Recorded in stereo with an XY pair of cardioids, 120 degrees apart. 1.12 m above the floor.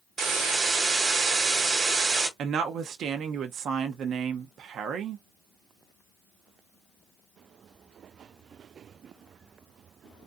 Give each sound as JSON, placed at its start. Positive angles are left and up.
{"t": 0.2, "sound": "a hiss", "azimuth_deg": -60, "distance_m": 1.2}
{"t": 2.4, "sound": "a woman speaking", "azimuth_deg": -60, "distance_m": 0.6}